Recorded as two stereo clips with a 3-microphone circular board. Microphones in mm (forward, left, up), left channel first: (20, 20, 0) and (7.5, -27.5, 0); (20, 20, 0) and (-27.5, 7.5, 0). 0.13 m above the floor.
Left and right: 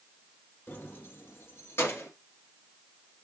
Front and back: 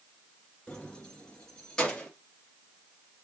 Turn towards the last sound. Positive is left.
turn(degrees=90)